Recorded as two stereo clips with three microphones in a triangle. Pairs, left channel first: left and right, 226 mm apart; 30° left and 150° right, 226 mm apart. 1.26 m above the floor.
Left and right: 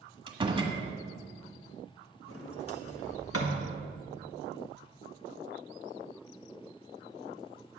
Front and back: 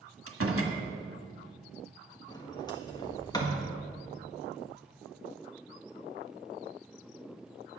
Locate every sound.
0.3 s a door slam: 160° right, 1.5 m
2.3 s a sliding door: 100° left, 1.5 m